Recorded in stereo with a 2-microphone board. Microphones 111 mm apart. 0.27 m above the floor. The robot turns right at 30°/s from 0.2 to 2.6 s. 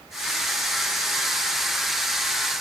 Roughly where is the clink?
I don't hear a clink.